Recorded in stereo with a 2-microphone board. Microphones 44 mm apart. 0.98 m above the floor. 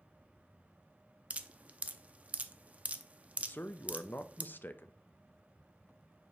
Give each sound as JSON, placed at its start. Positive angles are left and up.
{"t": 1.3, "sound": "dripping", "side_deg": -35, "distance_m": 0.5}
{"t": 3.4, "sound": "a man speaking", "side_deg": 50, "distance_m": 0.5}